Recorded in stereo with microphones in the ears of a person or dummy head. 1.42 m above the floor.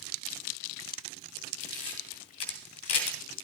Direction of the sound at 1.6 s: 30° left (ahead or behind).